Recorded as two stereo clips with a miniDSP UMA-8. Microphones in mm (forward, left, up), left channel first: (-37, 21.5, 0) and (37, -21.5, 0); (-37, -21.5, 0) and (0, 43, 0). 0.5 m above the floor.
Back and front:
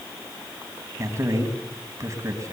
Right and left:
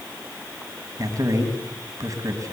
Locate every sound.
1.0 s a man speaking: 20° left, 3.5 m